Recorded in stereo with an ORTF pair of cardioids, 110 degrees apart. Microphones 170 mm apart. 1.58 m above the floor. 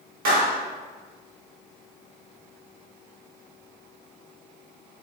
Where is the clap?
60° right, 1.9 m.